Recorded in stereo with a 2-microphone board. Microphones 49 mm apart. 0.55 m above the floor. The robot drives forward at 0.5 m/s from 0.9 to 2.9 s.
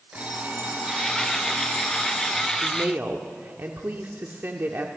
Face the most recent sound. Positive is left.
turn(degrees=-45)  # may be behind; listen again after turning